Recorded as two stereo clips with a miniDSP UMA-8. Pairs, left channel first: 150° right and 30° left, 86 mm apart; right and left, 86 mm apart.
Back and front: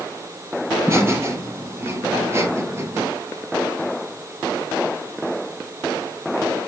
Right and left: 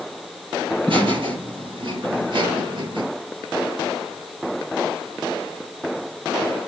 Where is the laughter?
90° left, 4.5 m.